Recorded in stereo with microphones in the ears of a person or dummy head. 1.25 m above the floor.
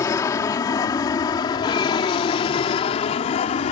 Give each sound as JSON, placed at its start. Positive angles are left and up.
{"t": 0.0, "sound": "an aircraft", "side_deg": 20}